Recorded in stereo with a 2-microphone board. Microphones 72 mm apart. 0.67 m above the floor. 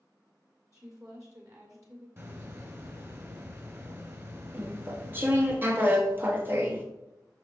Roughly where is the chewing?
Right.